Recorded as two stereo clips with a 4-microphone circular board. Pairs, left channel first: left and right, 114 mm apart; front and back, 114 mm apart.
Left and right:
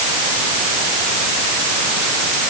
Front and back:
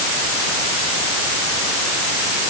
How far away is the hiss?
No hiss in this recording.